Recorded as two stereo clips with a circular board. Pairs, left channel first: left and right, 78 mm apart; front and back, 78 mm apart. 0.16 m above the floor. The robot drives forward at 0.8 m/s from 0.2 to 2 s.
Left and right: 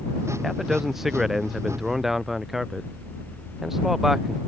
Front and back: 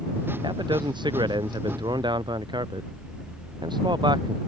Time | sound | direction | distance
0.4 | a man speaking | 175° right | ?